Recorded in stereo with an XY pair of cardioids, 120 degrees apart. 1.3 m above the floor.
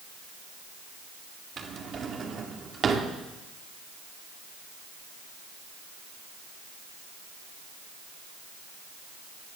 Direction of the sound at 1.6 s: 40° right.